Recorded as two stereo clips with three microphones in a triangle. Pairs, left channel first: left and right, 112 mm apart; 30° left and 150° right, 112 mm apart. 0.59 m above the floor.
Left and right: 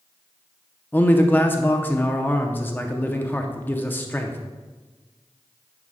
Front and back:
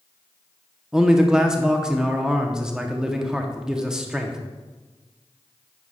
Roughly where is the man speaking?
Behind left.